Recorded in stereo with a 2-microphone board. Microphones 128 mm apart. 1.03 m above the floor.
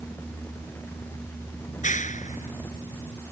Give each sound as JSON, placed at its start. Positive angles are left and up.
{"t": 1.7, "sound": "a clap", "side_deg": 70}